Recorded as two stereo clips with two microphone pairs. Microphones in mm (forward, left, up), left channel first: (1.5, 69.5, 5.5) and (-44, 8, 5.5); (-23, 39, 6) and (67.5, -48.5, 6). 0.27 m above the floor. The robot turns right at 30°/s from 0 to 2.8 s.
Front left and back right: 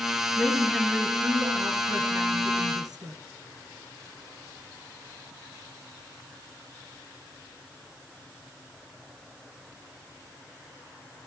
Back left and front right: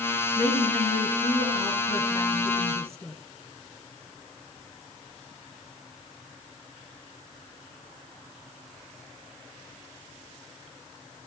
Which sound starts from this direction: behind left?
A woman speaking, at 0.4 s.